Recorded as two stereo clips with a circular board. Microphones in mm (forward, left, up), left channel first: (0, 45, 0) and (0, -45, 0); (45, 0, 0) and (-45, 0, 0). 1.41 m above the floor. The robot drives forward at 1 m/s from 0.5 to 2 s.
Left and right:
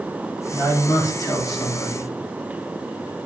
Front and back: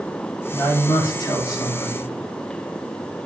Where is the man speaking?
35° left, 4.5 m; by 2.1 s 50° left, 3.5 m.